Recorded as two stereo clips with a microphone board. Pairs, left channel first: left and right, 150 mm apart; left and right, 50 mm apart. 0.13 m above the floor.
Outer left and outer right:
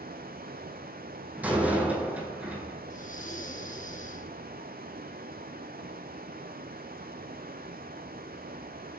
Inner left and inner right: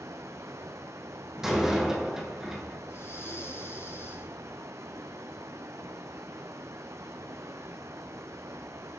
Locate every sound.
0.0 s running water: 85° right, 1.1 m
1.4 s a door slam: 10° right (ahead or behind), 4 m
2.9 s breathing: 60° left (ahead or behind), 2 m